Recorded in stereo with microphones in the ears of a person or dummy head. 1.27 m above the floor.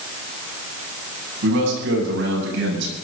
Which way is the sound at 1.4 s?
65° right (ahead or behind).